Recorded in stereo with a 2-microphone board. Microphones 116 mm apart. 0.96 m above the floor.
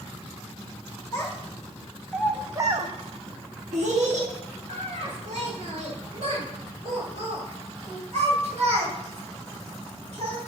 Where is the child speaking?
30° left (ahead or behind), 1.1 m; by 10.4 s 65° right (ahead or behind), 5 m.